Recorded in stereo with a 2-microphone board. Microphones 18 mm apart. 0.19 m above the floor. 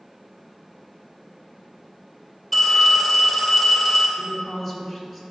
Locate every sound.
2.5 s a phone ringing: centre (ahead or behind), 2.5 m
4.2 s a woman speaking: 10° right (ahead or behind), 2.5 m